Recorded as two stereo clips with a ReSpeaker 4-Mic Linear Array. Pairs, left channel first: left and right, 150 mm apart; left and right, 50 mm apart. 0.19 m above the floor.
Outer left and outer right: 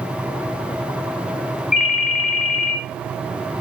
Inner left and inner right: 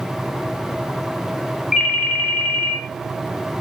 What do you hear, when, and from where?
1.7 s a ringtone: 10° right (ahead or behind), 0.6 m